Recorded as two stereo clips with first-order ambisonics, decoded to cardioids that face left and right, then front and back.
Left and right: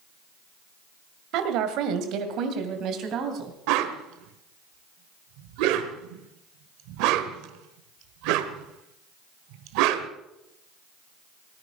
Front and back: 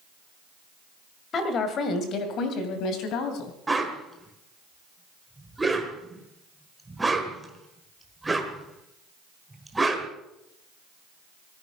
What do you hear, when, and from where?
1.3 s a woman speaking: 60° right, 2 m; by 3.5 s 40° right, 3 m
3.7 s a whoosh: 100° right, 1.3 m